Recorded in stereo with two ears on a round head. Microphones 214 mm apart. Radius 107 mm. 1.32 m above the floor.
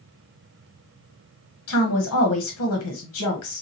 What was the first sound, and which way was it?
A woman speaking, 65° left (ahead or behind).